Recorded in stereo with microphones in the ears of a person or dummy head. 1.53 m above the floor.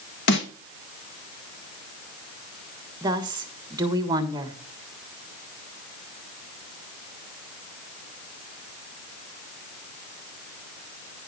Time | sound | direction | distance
0.3 | a snare drum | 70° left (ahead or behind) | 1.3 m
3.0 | a woman speaking | 25° right (ahead or behind) | 1.5 m